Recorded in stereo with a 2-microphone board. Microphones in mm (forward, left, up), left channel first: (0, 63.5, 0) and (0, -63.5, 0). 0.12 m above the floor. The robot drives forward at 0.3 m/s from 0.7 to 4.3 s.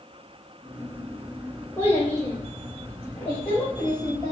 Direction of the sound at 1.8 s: 15° left (ahead or behind).